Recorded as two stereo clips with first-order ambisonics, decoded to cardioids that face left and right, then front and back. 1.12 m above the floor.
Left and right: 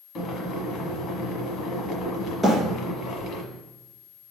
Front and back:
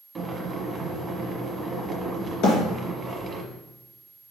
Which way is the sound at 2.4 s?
5° left.